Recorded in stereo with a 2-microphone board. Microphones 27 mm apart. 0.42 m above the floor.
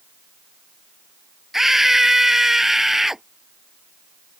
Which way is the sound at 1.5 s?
10° right (ahead or behind).